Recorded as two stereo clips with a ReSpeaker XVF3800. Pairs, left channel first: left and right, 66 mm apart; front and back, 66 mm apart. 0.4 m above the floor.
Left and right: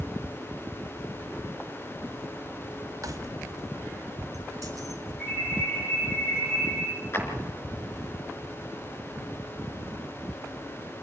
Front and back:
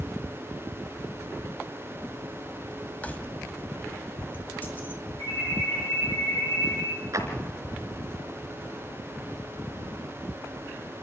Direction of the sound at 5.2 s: 30° left.